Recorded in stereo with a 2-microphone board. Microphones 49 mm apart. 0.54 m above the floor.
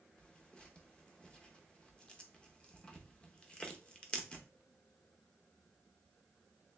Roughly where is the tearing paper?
Centre.